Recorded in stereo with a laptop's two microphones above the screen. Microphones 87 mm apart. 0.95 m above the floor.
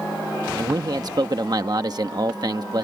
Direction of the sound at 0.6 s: 50° right (ahead or behind).